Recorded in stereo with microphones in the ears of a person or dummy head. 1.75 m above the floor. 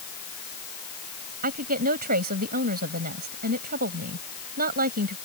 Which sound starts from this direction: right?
A woman speaking, at 1.4 s.